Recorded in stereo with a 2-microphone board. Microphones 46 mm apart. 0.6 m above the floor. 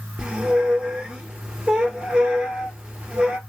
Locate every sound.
0.2 s a squeak: 20° right (ahead or behind), 0.8 m